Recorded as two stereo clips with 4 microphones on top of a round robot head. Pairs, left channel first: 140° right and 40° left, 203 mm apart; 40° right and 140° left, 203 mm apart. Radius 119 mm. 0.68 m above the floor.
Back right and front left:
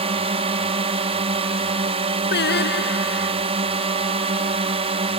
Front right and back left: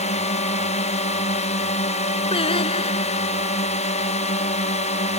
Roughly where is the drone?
Ahead.